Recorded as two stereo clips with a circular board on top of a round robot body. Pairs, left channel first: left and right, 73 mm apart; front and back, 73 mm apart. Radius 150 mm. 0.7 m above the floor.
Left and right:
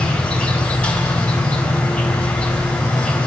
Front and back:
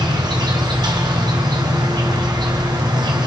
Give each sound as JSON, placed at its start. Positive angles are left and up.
{"t": 0.0, "sound": "an insect", "azimuth_deg": 165, "distance_m": 3.5}